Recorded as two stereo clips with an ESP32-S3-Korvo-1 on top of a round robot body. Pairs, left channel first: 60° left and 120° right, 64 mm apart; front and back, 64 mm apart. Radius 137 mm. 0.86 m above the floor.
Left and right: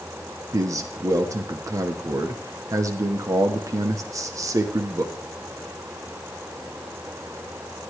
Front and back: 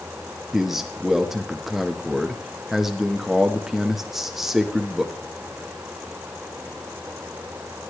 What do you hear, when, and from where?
0.5 s a man speaking: 95° right, 1.4 m